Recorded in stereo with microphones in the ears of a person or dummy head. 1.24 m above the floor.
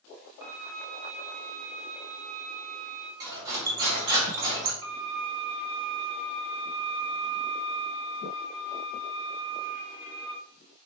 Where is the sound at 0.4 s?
60° right (ahead or behind), 0.9 m.